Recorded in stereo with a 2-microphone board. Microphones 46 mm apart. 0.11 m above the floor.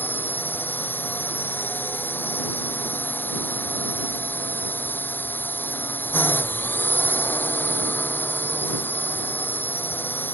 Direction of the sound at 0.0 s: 45° left (ahead or behind).